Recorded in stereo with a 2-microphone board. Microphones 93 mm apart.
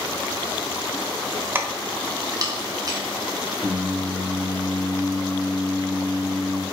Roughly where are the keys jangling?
Right.